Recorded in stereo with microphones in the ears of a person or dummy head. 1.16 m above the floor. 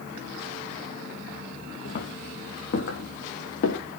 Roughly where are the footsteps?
Left.